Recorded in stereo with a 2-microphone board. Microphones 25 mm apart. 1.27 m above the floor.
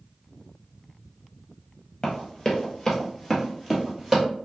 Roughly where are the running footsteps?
Left.